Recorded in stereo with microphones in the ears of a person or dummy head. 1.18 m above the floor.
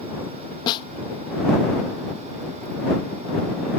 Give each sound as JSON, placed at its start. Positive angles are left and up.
{"t": 0.7, "sound": "a snare drum", "side_deg": 30}